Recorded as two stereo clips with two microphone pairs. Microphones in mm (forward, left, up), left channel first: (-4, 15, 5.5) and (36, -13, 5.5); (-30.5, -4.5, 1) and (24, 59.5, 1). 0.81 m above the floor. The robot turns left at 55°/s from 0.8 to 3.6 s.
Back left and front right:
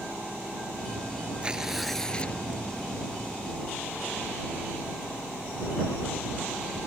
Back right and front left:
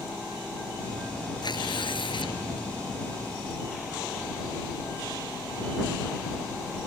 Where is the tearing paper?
100° right; by 2.4 s 155° right.